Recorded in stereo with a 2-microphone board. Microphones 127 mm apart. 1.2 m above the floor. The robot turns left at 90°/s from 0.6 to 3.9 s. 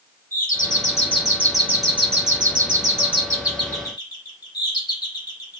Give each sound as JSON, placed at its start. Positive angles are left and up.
{"t": 0.3, "sound": "a doorbell", "azimuth_deg": 85, "distance_m": 3.5}